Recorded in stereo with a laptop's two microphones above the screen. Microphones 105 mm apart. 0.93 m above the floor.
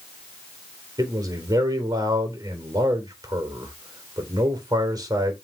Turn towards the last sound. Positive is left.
turn(degrees=-40)  # may be behind; listen again after turning